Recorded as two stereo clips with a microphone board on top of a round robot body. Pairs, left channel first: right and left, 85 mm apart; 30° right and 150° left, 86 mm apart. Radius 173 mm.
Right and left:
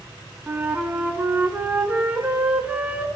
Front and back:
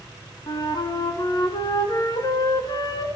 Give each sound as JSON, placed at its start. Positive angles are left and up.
{"t": 0.5, "sound": "a flute", "azimuth_deg": 15, "distance_m": 2.5}